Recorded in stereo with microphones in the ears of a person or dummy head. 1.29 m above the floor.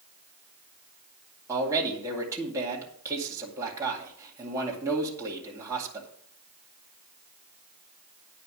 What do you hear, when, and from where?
1.5 s a man speaking: 20° right (ahead or behind), 2 m